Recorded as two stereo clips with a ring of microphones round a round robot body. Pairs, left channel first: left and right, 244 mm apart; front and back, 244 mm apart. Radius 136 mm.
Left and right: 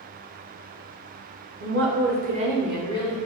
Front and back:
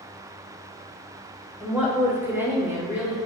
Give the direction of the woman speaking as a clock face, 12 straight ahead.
3 o'clock.